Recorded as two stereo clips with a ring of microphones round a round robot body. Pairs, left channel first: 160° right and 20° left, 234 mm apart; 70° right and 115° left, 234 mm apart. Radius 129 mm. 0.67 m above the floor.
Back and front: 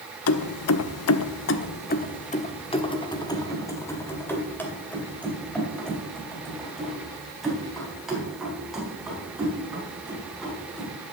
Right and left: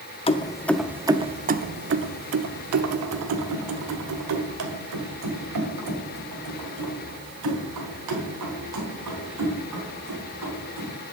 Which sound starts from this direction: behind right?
Keys jangling, at 0.3 s.